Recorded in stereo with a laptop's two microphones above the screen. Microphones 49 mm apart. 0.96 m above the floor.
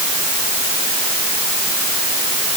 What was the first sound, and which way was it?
Only background noise.